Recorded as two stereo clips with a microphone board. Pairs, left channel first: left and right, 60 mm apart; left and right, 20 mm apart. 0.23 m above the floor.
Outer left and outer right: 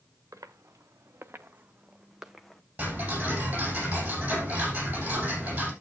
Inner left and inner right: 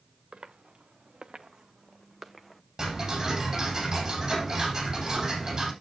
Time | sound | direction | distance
0.3 | footsteps | 55° right (ahead or behind) | 1.6 m
2.8 | ticking | 25° right (ahead or behind) | 8.5 m